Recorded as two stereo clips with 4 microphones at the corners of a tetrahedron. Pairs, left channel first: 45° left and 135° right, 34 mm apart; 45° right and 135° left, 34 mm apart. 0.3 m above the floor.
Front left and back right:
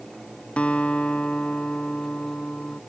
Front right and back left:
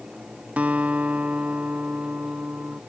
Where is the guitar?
95° left.